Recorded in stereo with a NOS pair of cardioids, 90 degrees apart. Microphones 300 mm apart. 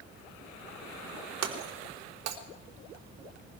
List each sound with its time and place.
1.4 s breaking glass: 60° right, 4 m